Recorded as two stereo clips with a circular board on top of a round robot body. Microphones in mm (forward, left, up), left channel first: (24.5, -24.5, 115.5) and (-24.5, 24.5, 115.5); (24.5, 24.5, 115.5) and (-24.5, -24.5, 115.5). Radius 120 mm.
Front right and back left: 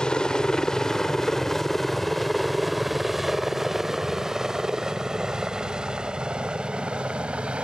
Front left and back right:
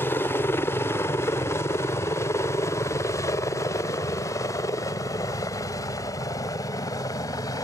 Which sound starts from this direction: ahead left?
A helicopter, at 0.0 s.